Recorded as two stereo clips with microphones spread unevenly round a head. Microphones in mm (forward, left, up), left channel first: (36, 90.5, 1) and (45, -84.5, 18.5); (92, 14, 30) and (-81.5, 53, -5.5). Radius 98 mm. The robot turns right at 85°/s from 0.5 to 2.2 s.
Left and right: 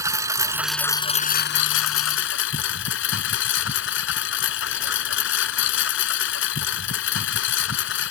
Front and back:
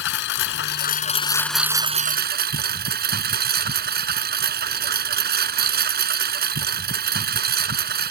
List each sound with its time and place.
0.0 s a lawn mower: 15° right; by 8.1 s 130° left